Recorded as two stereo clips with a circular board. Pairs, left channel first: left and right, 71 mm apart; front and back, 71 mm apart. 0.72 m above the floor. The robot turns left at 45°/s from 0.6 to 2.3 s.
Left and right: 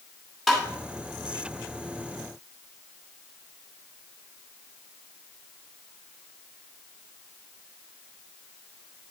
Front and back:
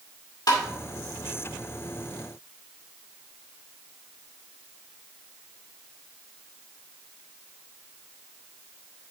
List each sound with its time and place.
0.5 s tapping: straight ahead, 2 m